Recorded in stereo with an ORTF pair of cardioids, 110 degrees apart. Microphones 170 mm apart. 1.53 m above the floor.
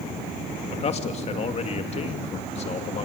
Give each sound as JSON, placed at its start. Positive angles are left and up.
{"t": 0.7, "sound": "a man speaking", "azimuth_deg": 40, "distance_m": 2.5}